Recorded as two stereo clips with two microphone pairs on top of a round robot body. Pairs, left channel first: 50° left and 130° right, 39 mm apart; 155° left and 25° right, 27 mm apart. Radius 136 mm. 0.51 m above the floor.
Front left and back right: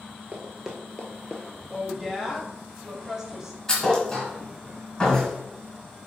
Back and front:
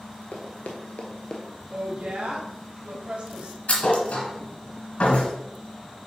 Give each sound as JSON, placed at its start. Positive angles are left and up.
{"t": 0.3, "sound": "running footsteps", "azimuth_deg": 170, "distance_m": 0.7}
{"t": 1.7, "sound": "a woman speaking", "azimuth_deg": -55, "distance_m": 1.4}
{"t": 3.7, "sound": "a thud", "azimuth_deg": 130, "distance_m": 2.0}